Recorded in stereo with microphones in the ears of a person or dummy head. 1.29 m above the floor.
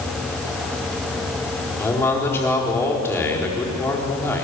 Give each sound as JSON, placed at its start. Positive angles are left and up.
{"t": 1.8, "sound": "a man speaking", "side_deg": 15, "distance_m": 4.0}